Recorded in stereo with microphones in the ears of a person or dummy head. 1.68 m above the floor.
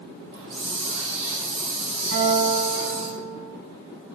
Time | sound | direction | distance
0.3 | a hiss | 60° right (ahead or behind) | 2 m
2.1 | a guitar | 70° right (ahead or behind) | 5 m